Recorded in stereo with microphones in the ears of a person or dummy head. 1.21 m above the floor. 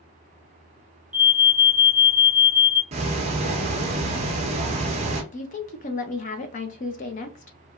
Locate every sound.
1.1 s an alarm: 35° right (ahead or behind), 1.0 m
2.9 s ticking: 25° right (ahead or behind), 0.7 m
5.3 s a woman speaking: 35° left (ahead or behind), 0.7 m